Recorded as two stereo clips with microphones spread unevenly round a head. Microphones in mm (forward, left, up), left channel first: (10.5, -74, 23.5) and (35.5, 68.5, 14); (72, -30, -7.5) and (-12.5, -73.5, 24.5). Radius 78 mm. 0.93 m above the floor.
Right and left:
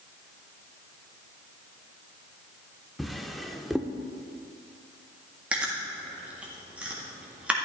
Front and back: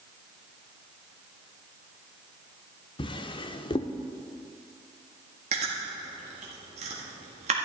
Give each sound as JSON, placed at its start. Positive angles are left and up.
{"t": 3.0, "sound": "a drawer", "azimuth_deg": -15, "distance_m": 0.7}
{"t": 5.5, "sound": "chewing", "azimuth_deg": 160, "distance_m": 1.6}